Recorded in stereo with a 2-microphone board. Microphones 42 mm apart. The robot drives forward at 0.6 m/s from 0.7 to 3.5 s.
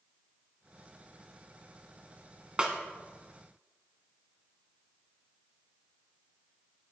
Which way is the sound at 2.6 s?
25° right (ahead or behind).